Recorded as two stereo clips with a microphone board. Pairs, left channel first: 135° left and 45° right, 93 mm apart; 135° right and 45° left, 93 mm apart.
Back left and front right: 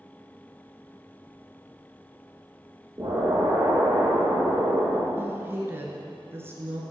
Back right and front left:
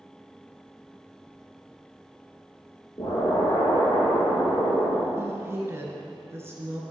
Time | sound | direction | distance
3.0 | an explosion | 100° right | 3 m
5.2 | a woman speaking | 5° left | 1.3 m